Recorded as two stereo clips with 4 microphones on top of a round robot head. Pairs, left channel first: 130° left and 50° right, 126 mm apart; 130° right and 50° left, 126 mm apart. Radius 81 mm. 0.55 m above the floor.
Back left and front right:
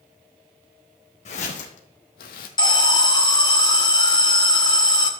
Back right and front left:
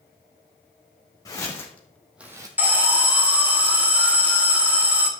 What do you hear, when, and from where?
1.2 s footsteps: 165° left, 2.5 m; by 2.5 s 115° left, 1.3 m
2.6 s an alarm: 115° left, 1.8 m